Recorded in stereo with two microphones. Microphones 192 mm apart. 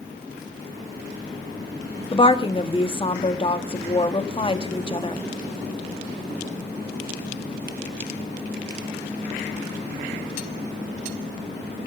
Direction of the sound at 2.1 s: 30° left (ahead or behind).